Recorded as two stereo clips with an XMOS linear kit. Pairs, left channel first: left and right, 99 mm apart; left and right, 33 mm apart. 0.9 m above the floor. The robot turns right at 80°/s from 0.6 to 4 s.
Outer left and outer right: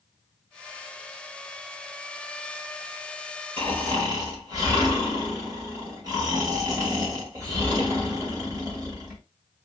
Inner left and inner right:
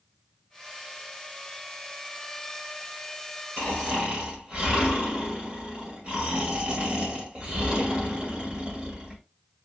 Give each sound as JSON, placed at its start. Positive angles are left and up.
{"t": 3.6, "sound": "snoring", "azimuth_deg": -70, "distance_m": 2.0}